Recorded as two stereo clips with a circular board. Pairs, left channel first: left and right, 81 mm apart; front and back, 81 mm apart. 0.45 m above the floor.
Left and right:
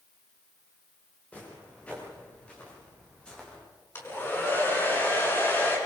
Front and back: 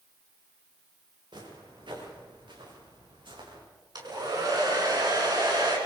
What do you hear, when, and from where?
1.3 s footsteps: 165° left, 9 m; by 3.6 s 170° left, 9 m
4.0 s a hair dryer: 155° left, 6 m